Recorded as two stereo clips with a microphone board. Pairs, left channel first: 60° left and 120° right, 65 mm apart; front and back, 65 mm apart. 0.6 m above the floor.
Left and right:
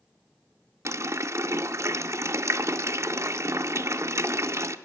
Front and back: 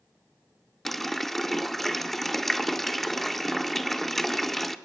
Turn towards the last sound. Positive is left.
turn(degrees=-85)